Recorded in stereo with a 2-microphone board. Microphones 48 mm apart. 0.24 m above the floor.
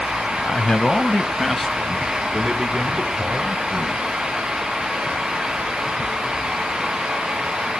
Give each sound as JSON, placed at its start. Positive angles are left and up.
{"t": 0.4, "sound": "a man speaking", "side_deg": 30, "distance_m": 1.0}